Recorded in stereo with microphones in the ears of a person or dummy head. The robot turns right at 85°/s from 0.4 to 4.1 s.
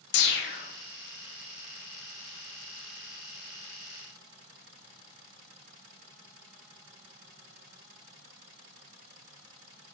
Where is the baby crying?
No baby crying in this recording.